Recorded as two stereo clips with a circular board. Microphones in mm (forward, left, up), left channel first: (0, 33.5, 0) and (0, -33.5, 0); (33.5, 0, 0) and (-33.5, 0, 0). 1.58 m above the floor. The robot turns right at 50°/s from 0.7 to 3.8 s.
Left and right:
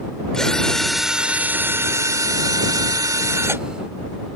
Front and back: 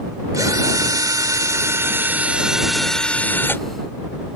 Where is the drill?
170° left; by 3.6 s 45° right.